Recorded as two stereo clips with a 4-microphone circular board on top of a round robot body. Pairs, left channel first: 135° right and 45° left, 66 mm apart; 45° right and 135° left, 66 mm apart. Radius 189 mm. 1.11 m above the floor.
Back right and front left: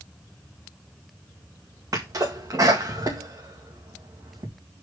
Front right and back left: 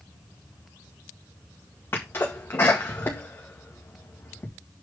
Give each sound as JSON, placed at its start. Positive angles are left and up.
{"t": 1.9, "sound": "a sneeze", "azimuth_deg": 15, "distance_m": 1.9}